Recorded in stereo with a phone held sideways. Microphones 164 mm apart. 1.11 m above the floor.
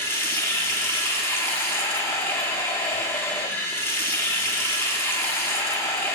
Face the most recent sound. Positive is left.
turn(degrees=15)  # may be behind; listen again after turning